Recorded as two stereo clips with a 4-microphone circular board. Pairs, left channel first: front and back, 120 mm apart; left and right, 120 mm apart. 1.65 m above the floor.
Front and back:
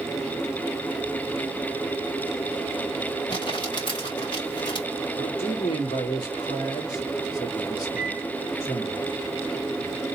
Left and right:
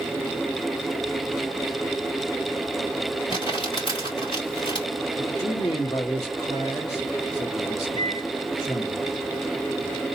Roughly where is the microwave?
Left.